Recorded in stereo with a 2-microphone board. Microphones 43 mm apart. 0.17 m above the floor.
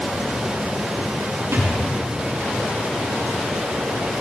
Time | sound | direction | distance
1.5 | a thud | 85° right | 5 m